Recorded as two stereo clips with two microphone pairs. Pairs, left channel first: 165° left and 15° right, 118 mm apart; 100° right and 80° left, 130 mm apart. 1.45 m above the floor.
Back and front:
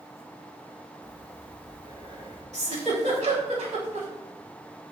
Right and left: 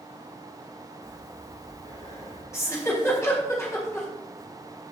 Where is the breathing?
65° right, 4.5 m.